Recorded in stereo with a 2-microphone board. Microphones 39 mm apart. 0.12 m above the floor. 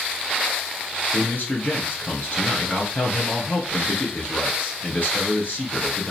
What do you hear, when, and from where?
1.1 s a man speaking: 50° left (ahead or behind), 1.7 m